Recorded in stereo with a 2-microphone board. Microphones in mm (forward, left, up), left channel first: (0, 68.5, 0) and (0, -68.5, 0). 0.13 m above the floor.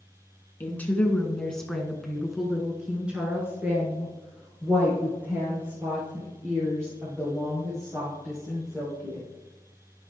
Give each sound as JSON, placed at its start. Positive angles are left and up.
{"t": 0.6, "sound": "a woman speaking", "side_deg": 15, "distance_m": 1.2}